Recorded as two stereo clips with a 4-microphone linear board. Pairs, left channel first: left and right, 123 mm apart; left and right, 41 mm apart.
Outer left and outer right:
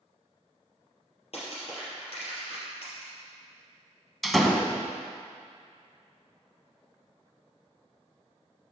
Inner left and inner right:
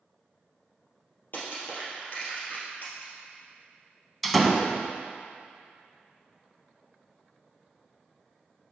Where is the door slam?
Centre (ahead or behind), 0.7 m.